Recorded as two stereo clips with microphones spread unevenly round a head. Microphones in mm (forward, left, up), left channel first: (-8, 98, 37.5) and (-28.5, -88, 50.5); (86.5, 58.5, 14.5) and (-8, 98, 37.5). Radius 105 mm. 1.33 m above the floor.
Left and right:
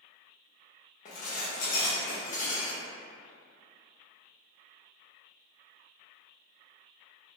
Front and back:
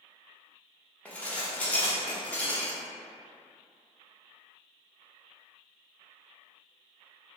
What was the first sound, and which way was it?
Dishes clattering, 65° left.